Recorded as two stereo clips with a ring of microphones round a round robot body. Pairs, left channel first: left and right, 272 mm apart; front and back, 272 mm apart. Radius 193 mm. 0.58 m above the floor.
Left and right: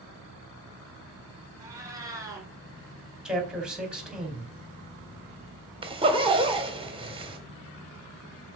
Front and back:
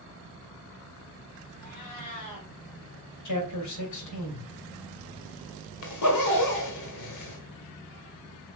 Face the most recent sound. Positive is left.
turn(degrees=-20)